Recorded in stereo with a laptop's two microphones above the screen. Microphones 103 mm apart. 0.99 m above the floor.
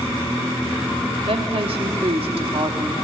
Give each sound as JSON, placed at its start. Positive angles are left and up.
{"t": 1.3, "sound": "a woman speaking", "side_deg": -65, "distance_m": 1.9}